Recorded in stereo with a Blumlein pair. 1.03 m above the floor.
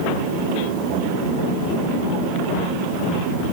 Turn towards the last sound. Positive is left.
No sound to turn to.